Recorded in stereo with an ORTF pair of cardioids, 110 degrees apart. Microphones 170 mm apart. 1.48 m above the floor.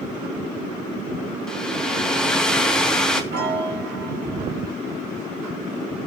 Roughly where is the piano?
Right.